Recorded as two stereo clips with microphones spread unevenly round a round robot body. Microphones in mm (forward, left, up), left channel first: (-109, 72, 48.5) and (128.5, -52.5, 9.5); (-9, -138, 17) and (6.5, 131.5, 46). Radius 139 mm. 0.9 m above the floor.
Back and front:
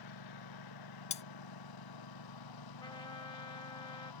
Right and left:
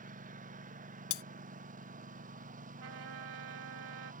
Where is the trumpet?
75° left.